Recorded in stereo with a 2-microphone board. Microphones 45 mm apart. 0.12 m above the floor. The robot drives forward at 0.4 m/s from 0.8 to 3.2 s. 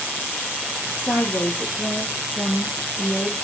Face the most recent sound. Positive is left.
turn(degrees=60)  # may be behind; listen again after turning